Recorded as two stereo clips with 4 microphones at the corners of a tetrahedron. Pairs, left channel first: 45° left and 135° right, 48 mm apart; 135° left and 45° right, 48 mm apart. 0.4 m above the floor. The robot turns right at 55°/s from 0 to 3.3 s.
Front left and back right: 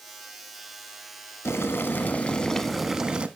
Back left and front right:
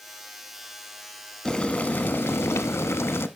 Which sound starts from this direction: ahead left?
Boiling, at 1.4 s.